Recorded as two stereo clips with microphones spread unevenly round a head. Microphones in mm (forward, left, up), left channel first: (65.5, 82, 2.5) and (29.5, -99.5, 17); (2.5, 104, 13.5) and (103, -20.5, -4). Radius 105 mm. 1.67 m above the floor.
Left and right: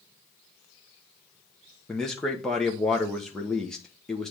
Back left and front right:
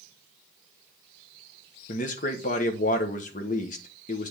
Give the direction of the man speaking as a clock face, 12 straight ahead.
6 o'clock.